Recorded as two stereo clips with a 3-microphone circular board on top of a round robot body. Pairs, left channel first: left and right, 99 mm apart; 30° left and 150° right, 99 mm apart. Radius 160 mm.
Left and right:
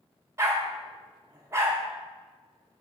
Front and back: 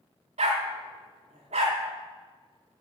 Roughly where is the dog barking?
Behind right.